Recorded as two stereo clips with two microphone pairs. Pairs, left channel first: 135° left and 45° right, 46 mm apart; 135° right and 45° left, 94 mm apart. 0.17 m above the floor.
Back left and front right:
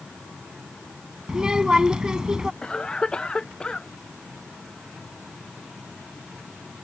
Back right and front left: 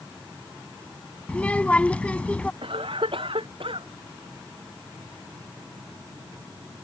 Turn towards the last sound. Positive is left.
turn(degrees=65)